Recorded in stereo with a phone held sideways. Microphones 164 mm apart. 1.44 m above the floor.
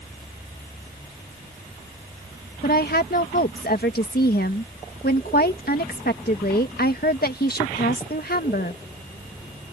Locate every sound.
2.6 s a woman speaking: 70° left (ahead or behind)